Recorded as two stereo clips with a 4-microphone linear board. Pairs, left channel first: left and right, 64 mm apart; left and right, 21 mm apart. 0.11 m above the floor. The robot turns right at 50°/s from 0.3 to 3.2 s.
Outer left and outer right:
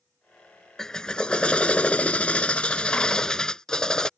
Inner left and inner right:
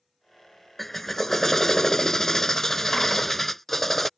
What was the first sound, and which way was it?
A drill, 10° left (ahead or behind).